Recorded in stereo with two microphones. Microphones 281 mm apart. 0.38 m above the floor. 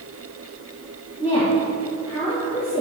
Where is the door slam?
No door slam in this recording.